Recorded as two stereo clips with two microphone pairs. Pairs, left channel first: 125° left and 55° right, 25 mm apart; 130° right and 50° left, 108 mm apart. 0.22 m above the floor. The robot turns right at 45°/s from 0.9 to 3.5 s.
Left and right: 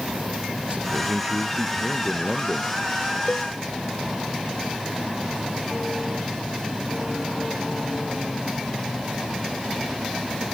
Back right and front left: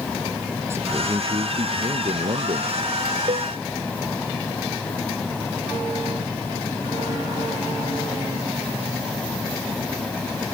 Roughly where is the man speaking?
Ahead.